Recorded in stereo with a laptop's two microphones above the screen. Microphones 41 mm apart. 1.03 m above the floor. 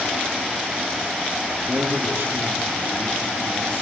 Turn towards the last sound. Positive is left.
turn(degrees=-80)